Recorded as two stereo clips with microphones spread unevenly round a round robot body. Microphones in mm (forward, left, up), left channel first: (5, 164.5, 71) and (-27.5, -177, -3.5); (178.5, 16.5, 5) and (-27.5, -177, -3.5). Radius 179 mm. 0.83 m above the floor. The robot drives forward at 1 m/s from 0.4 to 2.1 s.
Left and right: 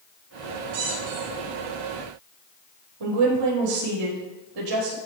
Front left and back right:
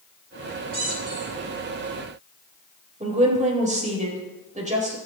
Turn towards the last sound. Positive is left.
turn(degrees=-75)